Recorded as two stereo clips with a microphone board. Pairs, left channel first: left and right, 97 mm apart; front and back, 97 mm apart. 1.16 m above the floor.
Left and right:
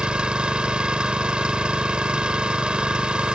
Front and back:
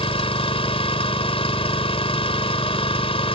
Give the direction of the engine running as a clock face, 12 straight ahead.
12 o'clock.